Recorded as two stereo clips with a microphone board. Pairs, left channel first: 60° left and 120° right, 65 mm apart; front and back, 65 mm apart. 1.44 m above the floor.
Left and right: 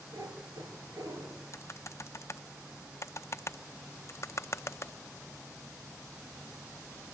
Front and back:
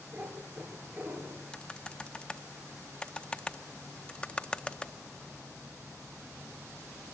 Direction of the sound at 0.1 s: 120° right.